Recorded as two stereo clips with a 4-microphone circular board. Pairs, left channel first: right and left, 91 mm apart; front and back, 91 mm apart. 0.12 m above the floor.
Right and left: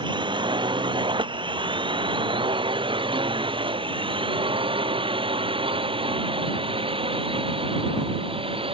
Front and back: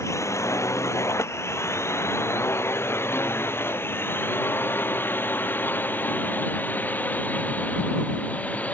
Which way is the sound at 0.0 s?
55° left.